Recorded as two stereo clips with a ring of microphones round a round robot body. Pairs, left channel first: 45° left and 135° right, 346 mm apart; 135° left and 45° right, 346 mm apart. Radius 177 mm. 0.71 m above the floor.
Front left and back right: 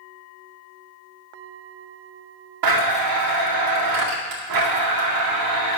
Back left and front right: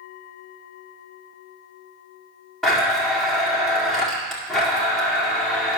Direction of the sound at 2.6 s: 135° right.